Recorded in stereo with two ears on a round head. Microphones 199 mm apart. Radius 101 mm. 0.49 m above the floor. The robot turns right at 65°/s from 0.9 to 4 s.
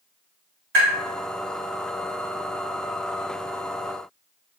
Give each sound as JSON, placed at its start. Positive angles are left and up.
{"t": 0.7, "sound": "tapping", "side_deg": -60, "distance_m": 1.9}